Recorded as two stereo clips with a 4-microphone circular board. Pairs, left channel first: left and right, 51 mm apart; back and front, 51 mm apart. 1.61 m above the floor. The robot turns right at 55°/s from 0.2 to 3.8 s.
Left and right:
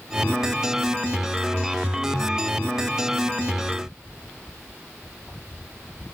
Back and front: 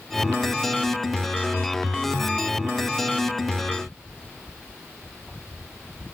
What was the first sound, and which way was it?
Only background noise.